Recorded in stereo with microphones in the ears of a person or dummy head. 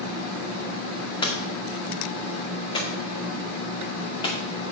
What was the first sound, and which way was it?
Hammering, 30° left (ahead or behind).